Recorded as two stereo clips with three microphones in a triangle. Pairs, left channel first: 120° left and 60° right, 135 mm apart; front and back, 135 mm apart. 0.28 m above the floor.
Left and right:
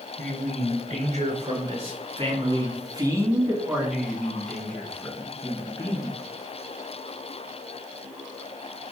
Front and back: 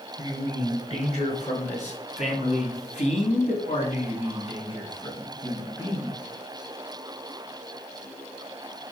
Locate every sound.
0.2 s a man speaking: 40° right, 3.5 m; by 6.2 s 65° left, 3 m